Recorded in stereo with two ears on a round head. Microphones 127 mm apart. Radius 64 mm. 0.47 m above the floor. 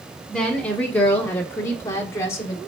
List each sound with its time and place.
0.3 s a woman speaking: 5° left (ahead or behind), 1.5 m; by 2.6 s 25° left (ahead or behind), 1.6 m